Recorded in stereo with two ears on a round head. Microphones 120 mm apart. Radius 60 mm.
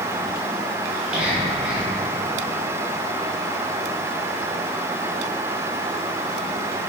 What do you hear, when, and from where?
0.9 s whispering: 10° right (ahead or behind), 1.4 m